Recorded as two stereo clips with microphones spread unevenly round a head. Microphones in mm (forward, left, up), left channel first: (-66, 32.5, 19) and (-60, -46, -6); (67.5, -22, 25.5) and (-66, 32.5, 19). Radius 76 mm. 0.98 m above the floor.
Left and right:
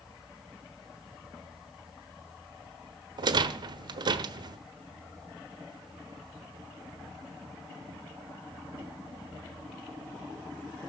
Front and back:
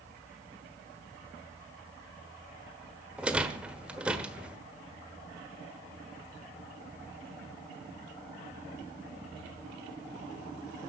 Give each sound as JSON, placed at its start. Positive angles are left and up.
{"t": 3.2, "sound": "a rattle", "azimuth_deg": -120, "distance_m": 1.3}